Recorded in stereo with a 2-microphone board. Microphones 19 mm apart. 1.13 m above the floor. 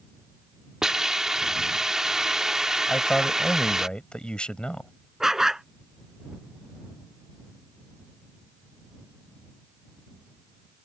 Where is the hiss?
35° right (ahead or behind).